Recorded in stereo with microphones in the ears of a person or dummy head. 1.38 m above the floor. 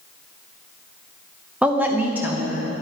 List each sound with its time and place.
1.6 s a woman speaking: 5° right (ahead or behind), 0.7 m; by 2.7 s 10° right (ahead or behind), 1.3 m